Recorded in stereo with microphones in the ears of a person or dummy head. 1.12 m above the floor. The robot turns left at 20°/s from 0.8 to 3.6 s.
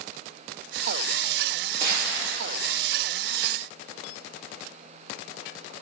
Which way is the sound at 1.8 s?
55° right (ahead or behind).